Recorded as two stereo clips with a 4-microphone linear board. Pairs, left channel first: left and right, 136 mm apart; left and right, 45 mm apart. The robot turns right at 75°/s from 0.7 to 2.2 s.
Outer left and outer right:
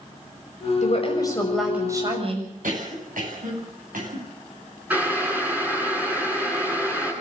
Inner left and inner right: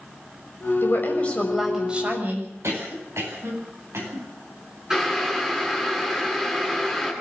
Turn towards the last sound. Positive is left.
turn(degrees=-10)  # may be behind; listen again after turning